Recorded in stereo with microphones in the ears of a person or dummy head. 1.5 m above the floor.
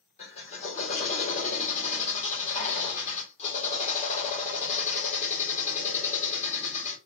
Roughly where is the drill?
Left.